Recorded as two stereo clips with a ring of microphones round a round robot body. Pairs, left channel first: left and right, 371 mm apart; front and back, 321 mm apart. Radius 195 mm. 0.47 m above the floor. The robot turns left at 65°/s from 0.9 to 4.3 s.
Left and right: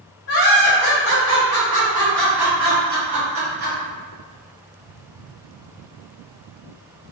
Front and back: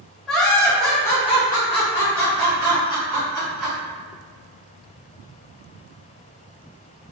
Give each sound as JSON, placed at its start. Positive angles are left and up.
{"t": 0.3, "sound": "laughter", "azimuth_deg": 85, "distance_m": 1.6}